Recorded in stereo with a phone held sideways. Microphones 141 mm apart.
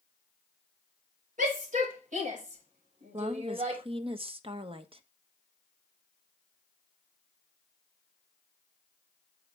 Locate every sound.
1.4 s a shout: 70° right (ahead or behind), 5.5 m; by 3.8 s 55° right (ahead or behind), 5 m
3.1 s a woman speaking: 40° right (ahead or behind), 1.1 m